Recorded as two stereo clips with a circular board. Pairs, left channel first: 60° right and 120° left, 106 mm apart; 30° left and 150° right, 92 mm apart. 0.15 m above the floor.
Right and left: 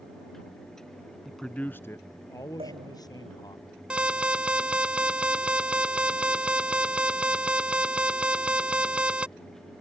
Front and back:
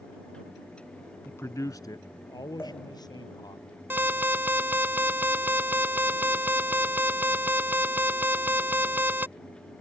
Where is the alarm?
175° right.